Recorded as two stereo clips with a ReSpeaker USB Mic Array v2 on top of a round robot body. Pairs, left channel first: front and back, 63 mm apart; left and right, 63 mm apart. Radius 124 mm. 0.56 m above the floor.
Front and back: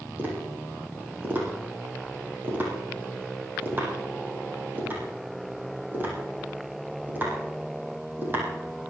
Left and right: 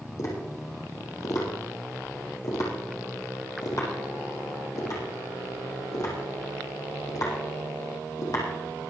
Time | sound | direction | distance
0.2 | tapping | 120° left | 6 m